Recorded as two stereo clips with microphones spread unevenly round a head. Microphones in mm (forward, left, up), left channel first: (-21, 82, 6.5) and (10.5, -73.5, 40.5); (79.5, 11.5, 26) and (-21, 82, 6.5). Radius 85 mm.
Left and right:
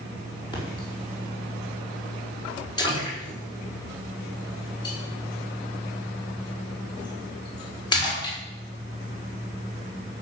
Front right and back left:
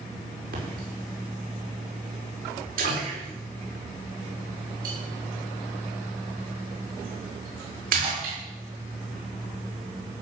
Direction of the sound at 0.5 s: 165° left.